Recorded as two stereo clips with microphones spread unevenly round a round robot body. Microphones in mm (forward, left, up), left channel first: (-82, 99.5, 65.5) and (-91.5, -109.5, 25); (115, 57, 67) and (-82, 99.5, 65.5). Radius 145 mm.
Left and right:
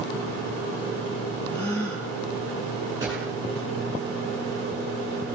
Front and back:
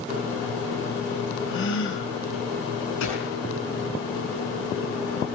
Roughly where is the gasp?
Ahead.